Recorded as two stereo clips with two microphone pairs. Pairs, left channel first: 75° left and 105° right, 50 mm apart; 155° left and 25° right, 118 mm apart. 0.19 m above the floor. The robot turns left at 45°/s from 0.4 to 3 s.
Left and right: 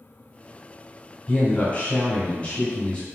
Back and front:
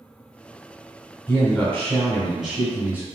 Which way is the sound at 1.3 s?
105° left.